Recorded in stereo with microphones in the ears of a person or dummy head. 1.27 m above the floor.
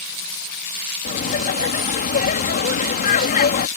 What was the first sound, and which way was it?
Laughter, 45° left (ahead or behind).